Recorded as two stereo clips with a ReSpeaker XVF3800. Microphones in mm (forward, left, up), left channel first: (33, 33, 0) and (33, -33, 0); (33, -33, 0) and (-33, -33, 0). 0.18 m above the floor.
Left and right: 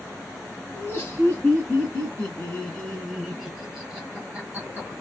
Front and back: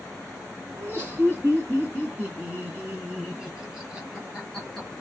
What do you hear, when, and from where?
0.8 s laughter: 135° left, 2.5 m; by 4.9 s 90° right, 1.8 m